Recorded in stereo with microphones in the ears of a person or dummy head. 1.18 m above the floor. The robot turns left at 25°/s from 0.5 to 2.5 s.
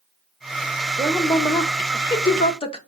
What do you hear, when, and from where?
1.0 s a woman speaking: 170° right, 0.6 m; by 2.8 s 150° left, 0.6 m